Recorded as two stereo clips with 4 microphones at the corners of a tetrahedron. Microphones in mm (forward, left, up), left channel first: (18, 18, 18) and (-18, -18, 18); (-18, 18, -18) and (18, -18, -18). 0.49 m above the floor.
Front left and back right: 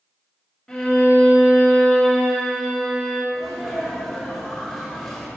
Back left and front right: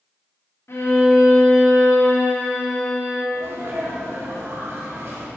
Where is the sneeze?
40° right, 2.0 m.